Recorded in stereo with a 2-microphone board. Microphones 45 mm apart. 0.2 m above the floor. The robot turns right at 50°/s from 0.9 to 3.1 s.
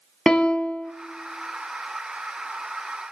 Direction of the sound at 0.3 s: 20° left (ahead or behind).